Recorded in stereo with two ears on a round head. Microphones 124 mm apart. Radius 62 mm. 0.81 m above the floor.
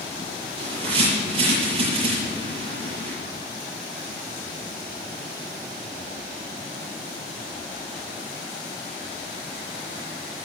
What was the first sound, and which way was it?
A bird, 40° right (ahead or behind).